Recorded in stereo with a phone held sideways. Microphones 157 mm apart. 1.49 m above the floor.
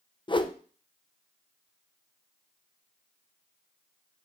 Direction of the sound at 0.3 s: 30° left (ahead or behind).